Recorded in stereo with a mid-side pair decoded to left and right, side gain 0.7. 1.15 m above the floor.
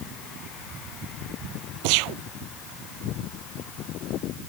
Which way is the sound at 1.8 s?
70° right.